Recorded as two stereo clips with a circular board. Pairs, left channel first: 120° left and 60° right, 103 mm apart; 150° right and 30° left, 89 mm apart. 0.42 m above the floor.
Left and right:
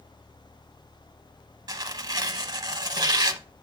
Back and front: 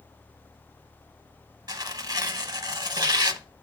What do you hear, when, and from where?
1.7 s tearing paper: 10° right, 0.7 m